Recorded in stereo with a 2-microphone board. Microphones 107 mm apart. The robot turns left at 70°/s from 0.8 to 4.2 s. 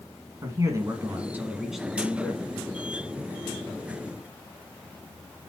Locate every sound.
0.4 s a man speaking: 105° right, 1.7 m; by 2.5 s 135° left, 1.7 m